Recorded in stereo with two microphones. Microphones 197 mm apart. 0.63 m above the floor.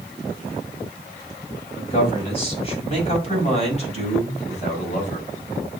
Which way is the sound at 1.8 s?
30° left (ahead or behind).